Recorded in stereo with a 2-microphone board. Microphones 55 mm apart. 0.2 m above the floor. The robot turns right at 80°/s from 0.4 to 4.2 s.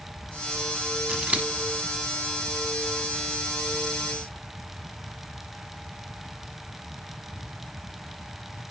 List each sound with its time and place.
1.1 s scissors: 15° right (ahead or behind), 0.9 m; by 1.5 s 30° right (ahead or behind), 0.9 m